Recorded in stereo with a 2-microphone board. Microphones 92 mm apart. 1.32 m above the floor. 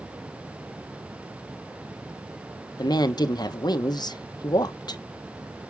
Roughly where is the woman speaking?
Left.